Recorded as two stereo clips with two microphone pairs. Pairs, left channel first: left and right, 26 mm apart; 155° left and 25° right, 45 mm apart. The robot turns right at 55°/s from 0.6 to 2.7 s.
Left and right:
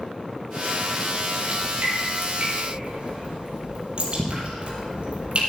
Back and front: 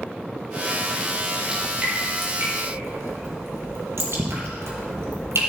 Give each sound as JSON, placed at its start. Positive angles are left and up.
{"t": 1.5, "sound": "dripping", "azimuth_deg": -105, "distance_m": 3.5}